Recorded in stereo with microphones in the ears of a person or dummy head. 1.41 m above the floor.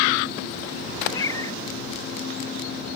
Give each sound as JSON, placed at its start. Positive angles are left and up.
{"t": 1.1, "sound": "a cat meowing", "side_deg": 20}